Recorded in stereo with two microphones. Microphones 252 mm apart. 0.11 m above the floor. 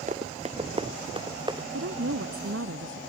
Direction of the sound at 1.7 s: 60° right (ahead or behind).